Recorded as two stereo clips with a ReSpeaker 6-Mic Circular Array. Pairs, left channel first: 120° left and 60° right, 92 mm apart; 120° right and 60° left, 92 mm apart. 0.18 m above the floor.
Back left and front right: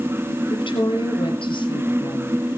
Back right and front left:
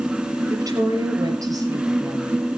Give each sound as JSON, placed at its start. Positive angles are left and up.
{"t": 0.5, "sound": "a woman speaking", "azimuth_deg": 110, "distance_m": 5.0}